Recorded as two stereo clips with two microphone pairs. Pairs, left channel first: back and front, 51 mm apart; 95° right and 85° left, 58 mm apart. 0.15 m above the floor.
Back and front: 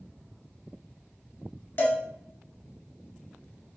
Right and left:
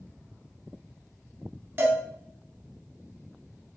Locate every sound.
1.8 s a cowbell: 135° left, 0.6 m